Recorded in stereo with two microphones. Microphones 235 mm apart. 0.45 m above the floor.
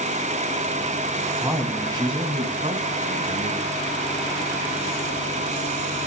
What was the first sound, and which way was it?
A man speaking, 10° right (ahead or behind).